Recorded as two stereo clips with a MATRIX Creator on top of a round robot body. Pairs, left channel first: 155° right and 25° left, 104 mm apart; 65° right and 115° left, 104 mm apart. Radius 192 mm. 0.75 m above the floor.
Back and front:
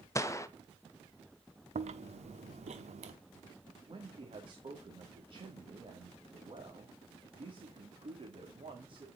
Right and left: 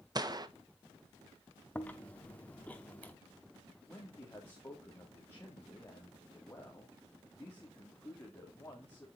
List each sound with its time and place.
0.1 s a gunshot: 150° left, 1.5 m
1.8 s chewing: 10° left, 0.6 m
3.9 s a man speaking: straight ahead, 2.5 m